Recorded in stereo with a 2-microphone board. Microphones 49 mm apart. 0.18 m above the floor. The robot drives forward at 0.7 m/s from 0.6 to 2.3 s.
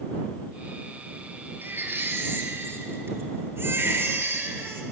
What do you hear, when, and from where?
1.6 s a baby crying: 45° right (ahead or behind), 2.5 m; by 4.8 s 55° right (ahead or behind), 2.5 m